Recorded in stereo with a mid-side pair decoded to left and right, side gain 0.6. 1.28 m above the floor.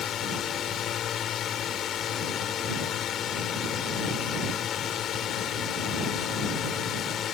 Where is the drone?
50° left.